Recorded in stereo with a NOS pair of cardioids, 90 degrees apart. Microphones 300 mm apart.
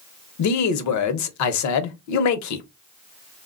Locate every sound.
0.4 s a man speaking: 70° left, 0.8 m